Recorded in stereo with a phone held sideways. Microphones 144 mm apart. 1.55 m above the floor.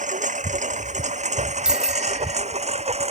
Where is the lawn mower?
60° right (ahead or behind); by 3.1 s 45° right (ahead or behind).